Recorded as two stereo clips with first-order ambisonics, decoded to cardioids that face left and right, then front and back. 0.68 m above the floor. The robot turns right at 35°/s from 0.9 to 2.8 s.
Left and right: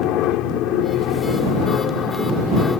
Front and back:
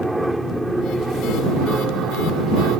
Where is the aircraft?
95° left; by 2.8 s 160° left.